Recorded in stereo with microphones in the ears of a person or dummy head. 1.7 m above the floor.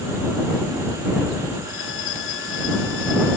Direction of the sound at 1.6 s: 80° left.